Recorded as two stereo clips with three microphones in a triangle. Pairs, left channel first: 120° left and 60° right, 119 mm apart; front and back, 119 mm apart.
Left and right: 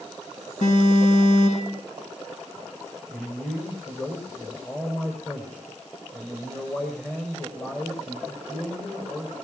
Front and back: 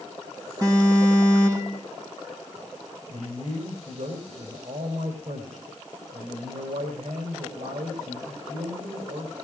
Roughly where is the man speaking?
Behind.